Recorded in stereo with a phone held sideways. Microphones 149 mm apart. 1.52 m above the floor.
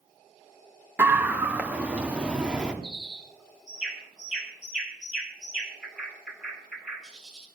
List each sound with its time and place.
1.0 s a scream: 15° right (ahead or behind), 1.9 m; by 2.7 s 5° right (ahead or behind), 3.5 m
2.8 s a bird: 5° right (ahead or behind), 5.5 m